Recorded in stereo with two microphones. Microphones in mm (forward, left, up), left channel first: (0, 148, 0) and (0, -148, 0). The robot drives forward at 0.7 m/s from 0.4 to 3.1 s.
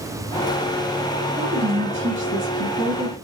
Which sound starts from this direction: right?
A woman speaking, at 1.4 s.